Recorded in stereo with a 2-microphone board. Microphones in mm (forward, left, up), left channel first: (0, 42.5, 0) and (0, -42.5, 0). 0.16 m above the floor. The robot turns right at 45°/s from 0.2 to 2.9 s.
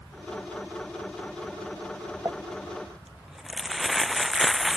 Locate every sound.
2.2 s crumpling: 30° right (ahead or behind); by 4.8 s 5° right (ahead or behind)